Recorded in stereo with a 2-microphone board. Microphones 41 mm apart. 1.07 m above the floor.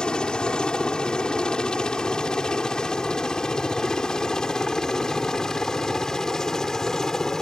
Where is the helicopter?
20° left (ahead or behind); by 7.4 s 15° left (ahead or behind).